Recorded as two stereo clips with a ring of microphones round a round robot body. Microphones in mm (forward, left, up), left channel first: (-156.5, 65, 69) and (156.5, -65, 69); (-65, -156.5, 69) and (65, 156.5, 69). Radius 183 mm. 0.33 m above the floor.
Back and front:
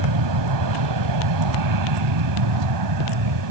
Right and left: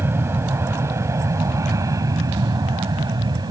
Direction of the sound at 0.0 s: 15° right.